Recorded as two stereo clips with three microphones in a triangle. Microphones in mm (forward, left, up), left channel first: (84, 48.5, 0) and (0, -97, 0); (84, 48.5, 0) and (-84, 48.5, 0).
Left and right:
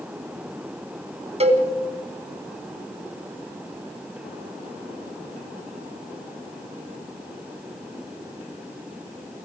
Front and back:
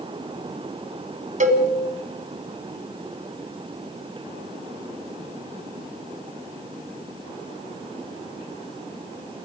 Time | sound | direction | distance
1.4 | a cowbell | 160° right | 2 m